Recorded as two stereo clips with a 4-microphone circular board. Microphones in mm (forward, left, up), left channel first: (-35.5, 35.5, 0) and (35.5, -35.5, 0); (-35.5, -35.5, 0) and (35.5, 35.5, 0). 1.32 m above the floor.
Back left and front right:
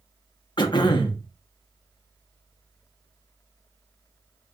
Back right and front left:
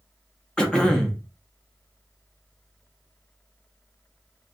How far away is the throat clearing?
About 0.6 m.